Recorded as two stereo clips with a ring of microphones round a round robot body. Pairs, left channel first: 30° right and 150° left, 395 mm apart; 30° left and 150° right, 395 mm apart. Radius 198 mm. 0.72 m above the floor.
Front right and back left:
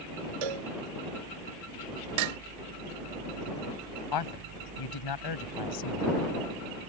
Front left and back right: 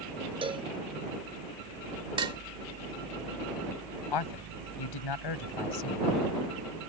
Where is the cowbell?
135° left.